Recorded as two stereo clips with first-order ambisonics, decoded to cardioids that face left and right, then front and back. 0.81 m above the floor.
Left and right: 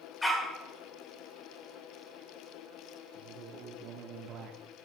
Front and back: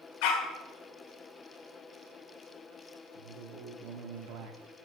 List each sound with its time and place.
0.2 s a dog barking: 10° left, 1.3 m
3.1 s a man speaking: 145° right, 1.3 m